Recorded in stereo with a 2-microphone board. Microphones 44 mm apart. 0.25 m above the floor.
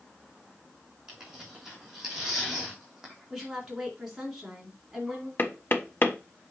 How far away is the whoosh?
I don't hear a whoosh.